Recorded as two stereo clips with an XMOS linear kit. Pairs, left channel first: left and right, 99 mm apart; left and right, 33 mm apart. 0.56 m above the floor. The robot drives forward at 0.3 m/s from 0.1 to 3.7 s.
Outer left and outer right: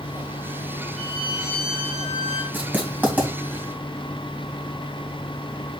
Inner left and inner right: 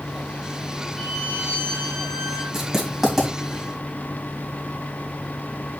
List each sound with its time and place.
1.0 s a violin: 5° right (ahead or behind), 5 m
2.5 s writing: 20° right (ahead or behind), 3 m; by 3.3 s 15° right (ahead or behind), 3 m